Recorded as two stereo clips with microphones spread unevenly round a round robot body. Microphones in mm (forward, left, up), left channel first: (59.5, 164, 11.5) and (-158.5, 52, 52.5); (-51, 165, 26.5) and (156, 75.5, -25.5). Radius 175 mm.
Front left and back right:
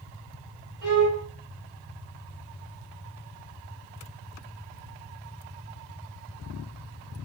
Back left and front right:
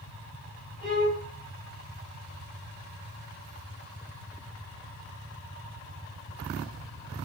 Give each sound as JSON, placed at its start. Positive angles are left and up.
{"t": 0.8, "sound": "a violin", "azimuth_deg": -115, "distance_m": 4.5}